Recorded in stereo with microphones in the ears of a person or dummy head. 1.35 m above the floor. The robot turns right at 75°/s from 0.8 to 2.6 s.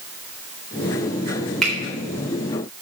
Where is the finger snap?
Centre (ahead or behind), 3.5 m; by 1.7 s 10° right (ahead or behind), 3.5 m.